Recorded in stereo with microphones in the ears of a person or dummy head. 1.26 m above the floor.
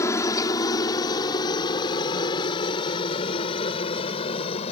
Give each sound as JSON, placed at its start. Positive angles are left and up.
{"t": 0.0, "sound": "a helicopter", "side_deg": 20}